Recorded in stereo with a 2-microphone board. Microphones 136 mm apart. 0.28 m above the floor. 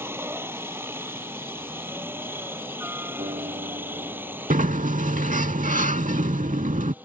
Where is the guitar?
60° right (ahead or behind).